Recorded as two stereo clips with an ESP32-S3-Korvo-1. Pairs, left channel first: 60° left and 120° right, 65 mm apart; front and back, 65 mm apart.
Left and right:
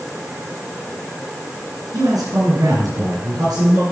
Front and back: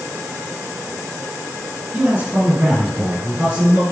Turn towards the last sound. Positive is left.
turn(degrees=-105)